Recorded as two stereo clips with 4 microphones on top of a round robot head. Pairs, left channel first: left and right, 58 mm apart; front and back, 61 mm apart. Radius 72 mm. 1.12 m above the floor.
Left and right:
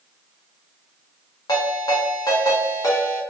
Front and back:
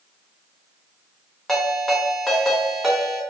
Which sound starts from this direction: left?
A ringtone, at 1.5 s.